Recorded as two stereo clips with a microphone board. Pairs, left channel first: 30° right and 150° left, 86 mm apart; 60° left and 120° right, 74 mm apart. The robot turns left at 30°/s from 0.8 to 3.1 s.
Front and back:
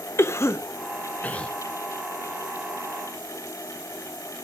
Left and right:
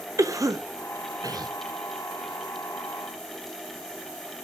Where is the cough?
85° right, 0.8 m; by 1.5 s 105° right, 0.8 m.